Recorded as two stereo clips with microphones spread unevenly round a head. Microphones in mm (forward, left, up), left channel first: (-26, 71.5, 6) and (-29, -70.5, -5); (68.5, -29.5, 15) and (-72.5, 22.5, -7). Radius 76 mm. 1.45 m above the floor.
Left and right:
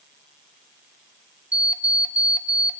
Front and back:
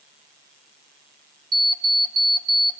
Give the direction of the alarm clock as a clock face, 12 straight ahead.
6 o'clock.